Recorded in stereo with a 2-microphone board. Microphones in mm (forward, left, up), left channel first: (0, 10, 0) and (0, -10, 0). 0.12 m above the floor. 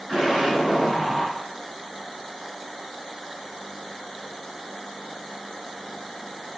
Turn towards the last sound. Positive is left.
turn(degrees=-20)  # may be behind; listen again after turning